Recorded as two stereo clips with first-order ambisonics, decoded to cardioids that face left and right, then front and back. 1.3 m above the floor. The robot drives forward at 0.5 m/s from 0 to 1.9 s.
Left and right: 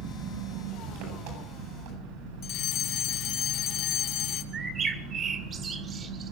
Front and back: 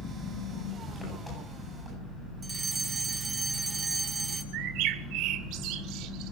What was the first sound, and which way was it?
An engine running, 85° right.